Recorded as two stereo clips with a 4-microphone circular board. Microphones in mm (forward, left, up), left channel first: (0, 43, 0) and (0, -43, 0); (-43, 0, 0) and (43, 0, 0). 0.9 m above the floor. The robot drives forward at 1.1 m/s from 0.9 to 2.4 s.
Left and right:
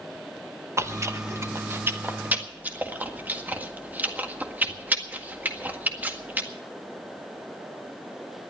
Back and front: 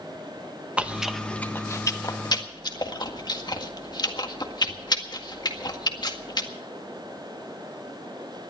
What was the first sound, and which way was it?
Chewing, 65° right.